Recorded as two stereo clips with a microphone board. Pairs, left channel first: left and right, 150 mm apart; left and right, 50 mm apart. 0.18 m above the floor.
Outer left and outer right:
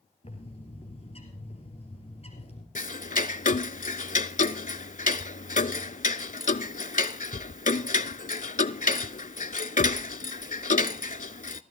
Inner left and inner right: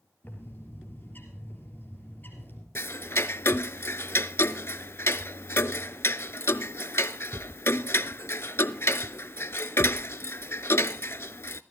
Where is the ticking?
65° left (ahead or behind), 0.5 m.